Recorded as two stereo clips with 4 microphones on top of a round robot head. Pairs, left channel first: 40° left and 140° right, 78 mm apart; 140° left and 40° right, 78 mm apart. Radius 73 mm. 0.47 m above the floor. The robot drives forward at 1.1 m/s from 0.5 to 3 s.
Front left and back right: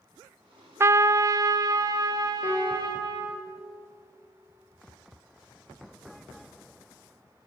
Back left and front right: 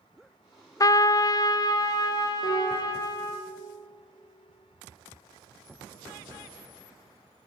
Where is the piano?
100° left, 5.5 m; by 3.1 s 110° left, 6 m.